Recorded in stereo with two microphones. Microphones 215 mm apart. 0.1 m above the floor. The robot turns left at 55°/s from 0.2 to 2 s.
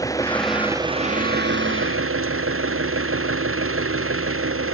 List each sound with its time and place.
0.0 s an engine running: 15° left; by 4.7 s 85° right